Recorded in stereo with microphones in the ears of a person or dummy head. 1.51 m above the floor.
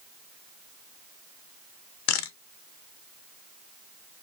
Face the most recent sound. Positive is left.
turn(degrees=80)